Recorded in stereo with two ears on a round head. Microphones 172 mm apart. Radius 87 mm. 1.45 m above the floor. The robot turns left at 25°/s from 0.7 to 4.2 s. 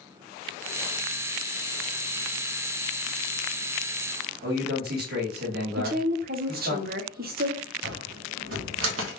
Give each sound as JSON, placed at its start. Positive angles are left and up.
{"t": 4.4, "sound": "a man speaking", "side_deg": -55, "distance_m": 1.5}
{"t": 5.8, "sound": "a woman speaking", "side_deg": -50, "distance_m": 0.7}
{"t": 7.8, "sound": "a cupboard door", "side_deg": -75, "distance_m": 0.9}